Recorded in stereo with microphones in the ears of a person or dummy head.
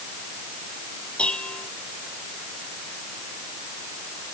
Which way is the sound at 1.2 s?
5° left (ahead or behind).